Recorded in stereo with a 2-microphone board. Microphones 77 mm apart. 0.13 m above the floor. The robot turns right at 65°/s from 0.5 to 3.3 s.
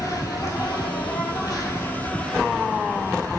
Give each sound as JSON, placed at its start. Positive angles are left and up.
{"t": 0.0, "sound": "an insect", "azimuth_deg": 55, "distance_m": 1.0}